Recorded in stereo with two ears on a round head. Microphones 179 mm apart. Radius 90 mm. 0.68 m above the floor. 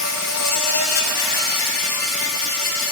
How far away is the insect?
About 1.8 m.